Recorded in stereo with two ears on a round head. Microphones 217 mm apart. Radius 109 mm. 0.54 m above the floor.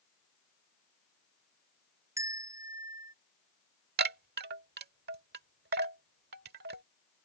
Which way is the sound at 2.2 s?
15° right (ahead or behind).